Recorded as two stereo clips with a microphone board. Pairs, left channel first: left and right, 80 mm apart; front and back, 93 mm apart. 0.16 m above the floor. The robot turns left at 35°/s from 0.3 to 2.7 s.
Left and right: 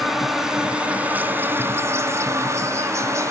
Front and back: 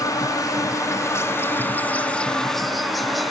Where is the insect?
5° right, 0.7 m; by 3.3 s 90° right, 0.7 m.